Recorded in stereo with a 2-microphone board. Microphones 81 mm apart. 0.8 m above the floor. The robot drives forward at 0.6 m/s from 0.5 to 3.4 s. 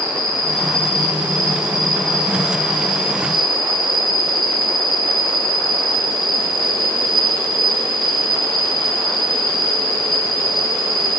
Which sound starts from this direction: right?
An insect, at 0.0 s.